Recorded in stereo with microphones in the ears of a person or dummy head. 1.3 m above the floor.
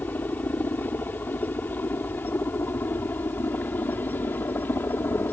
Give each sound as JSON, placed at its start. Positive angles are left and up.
{"t": 0.0, "sound": "a helicopter", "side_deg": 10}